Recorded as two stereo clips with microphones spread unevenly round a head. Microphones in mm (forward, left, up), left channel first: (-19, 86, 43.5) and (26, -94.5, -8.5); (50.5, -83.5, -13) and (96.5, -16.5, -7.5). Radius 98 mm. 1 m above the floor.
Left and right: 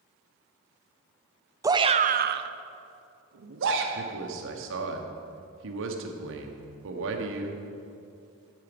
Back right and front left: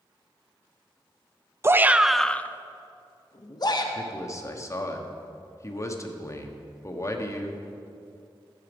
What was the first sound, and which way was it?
A shout, 5° right.